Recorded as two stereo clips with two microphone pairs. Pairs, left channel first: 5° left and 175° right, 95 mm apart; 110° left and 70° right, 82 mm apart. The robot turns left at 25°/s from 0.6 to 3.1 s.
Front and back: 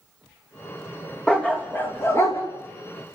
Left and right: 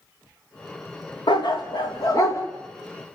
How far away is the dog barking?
About 3 m.